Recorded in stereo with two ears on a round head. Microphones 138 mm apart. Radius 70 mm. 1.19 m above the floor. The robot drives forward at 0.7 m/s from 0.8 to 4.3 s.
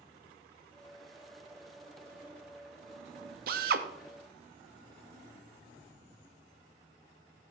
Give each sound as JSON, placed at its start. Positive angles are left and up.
{"t": 3.5, "sound": "a drill", "side_deg": -60, "distance_m": 0.8}